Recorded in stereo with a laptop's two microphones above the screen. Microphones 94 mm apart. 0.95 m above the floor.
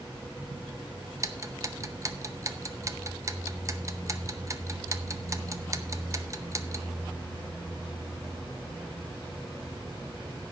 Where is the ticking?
35° right (ahead or behind), 0.7 m.